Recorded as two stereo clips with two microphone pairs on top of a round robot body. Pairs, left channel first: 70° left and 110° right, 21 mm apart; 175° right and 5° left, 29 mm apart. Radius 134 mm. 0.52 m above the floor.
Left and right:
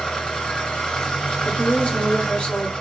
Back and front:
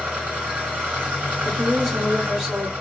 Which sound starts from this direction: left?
A woman speaking, at 1.4 s.